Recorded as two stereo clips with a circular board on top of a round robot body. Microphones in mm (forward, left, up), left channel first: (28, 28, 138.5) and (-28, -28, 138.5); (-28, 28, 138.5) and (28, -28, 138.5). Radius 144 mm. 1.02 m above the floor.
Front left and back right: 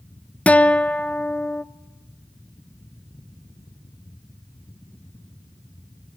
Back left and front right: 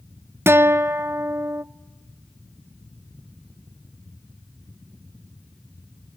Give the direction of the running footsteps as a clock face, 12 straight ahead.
No running footsteps in this recording.